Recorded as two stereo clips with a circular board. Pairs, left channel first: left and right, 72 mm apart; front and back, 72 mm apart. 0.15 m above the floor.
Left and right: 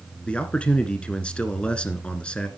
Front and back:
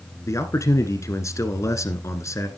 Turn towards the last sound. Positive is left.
turn(degrees=20)